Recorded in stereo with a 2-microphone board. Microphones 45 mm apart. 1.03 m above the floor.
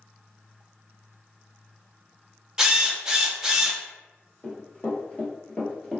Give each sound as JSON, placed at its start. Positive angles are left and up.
{"t": 2.6, "sound": "a drill", "side_deg": -15, "distance_m": 0.7}
{"t": 4.4, "sound": "running footsteps", "side_deg": 40, "distance_m": 1.5}